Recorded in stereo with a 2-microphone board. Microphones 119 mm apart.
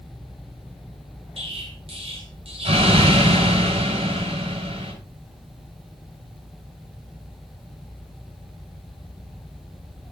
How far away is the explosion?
About 5 m.